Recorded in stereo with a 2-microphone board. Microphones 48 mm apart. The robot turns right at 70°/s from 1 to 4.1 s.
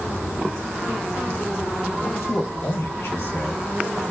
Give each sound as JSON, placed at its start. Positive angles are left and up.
{"t": 2.0, "sound": "a man speaking", "side_deg": 50, "distance_m": 1.1}